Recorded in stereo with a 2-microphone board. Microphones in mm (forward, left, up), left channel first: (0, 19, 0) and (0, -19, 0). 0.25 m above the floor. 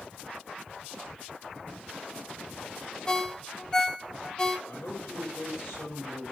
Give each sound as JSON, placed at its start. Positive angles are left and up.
{"t": 3.1, "sound": "a ringtone", "side_deg": 15, "distance_m": 0.9}
{"t": 4.7, "sound": "a man speaking", "side_deg": 70, "distance_m": 7.0}